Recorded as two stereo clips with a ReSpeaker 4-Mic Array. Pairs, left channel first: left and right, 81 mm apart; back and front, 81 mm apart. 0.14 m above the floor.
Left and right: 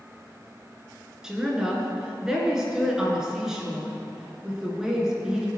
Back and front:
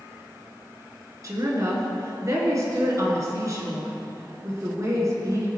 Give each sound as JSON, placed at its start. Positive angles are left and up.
{"t": 1.2, "sound": "a woman speaking", "azimuth_deg": -10, "distance_m": 1.9}